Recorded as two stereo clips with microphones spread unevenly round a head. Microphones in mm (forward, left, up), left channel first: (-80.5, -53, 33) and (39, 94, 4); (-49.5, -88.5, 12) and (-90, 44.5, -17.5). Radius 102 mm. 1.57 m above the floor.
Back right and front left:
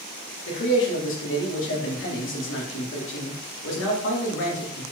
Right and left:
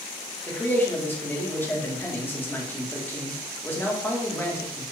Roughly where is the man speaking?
Behind right.